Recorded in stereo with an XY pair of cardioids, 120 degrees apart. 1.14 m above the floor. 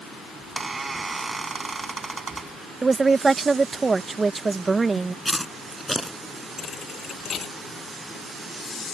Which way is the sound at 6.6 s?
45° left.